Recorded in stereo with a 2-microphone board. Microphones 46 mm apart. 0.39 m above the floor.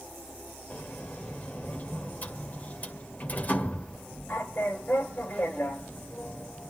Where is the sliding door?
40° left (ahead or behind), 1.8 m.